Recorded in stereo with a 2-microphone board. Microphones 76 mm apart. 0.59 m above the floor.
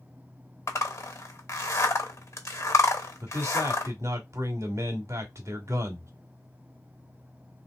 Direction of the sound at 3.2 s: 45° right (ahead or behind).